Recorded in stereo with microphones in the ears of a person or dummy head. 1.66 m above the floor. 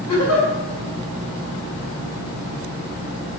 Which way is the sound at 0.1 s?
85° left.